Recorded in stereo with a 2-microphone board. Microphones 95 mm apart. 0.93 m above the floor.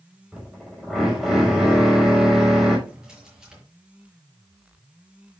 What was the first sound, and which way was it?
A drill, centre (ahead or behind).